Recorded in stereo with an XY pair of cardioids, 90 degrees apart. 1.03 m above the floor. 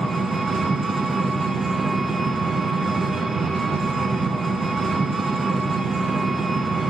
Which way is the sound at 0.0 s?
40° right.